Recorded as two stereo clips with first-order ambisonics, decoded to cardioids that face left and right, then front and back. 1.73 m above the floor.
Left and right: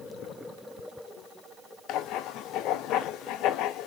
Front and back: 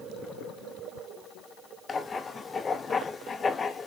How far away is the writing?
About 0.5 m.